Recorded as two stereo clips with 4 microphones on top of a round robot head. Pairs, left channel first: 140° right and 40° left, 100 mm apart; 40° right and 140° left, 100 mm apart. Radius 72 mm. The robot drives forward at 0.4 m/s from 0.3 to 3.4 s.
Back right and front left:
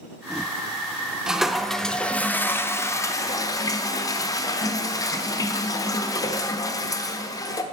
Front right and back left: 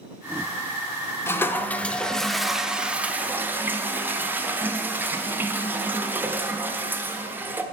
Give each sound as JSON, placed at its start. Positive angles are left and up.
{"t": 1.3, "sound": "a toilet flushing", "azimuth_deg": -35, "distance_m": 0.9}